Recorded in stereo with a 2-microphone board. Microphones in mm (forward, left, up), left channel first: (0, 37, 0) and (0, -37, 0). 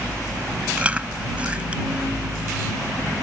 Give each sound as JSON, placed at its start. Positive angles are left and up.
{"t": 0.8, "sound": "chewing", "side_deg": -20}